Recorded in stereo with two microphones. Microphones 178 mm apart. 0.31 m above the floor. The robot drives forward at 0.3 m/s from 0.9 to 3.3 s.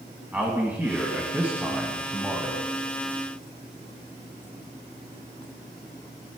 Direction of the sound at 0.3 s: 10° right (ahead or behind).